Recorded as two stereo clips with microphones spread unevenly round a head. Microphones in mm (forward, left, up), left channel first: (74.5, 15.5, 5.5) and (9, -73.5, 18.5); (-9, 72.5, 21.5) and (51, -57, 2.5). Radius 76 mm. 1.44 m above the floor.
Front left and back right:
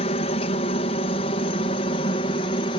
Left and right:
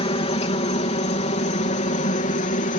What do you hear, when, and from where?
0.0 s a helicopter: 70° left; by 2.8 s 90° left